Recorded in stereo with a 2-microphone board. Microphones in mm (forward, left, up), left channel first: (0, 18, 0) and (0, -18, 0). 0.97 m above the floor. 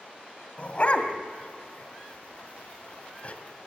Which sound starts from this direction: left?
A dog barking, at 0.6 s.